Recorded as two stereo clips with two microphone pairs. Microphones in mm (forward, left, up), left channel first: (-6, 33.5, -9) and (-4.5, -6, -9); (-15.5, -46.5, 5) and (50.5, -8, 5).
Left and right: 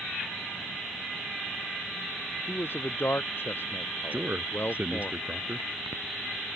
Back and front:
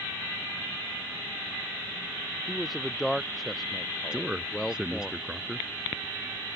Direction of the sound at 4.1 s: 50° right.